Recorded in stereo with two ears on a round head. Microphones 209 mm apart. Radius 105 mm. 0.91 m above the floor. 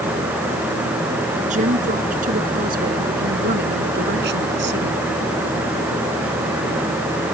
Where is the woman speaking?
30° right (ahead or behind); by 5.0 s 50° right (ahead or behind).